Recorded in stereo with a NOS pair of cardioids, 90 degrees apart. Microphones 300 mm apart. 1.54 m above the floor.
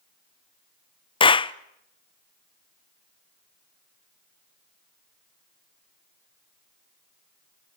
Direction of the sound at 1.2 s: 15° left.